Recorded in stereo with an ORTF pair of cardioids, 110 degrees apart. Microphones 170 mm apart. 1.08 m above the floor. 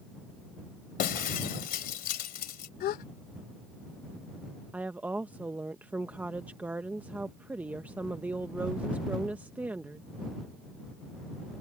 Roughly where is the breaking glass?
Ahead left.